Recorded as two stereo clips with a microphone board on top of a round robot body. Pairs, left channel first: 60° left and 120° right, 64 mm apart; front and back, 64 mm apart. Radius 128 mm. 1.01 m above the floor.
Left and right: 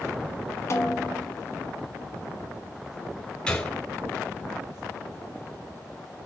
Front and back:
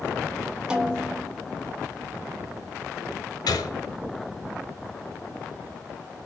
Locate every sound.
0.7 s a snare drum: 105° left, 2.5 m
3.5 s a gunshot: 15° right, 4 m